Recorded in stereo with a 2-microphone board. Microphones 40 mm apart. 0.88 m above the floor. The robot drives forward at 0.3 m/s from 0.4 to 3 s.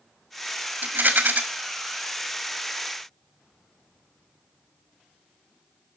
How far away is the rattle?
About 1.9 m.